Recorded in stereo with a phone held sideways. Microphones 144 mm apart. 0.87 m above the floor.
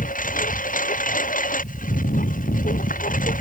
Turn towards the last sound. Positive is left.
turn(degrees=70)  # may be behind; listen again after turning